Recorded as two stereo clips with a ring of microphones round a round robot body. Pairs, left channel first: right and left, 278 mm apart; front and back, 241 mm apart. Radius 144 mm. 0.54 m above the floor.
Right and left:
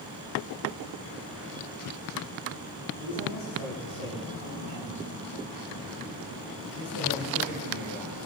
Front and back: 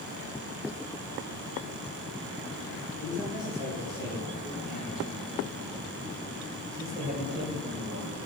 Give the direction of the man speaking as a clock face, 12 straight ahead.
3 o'clock.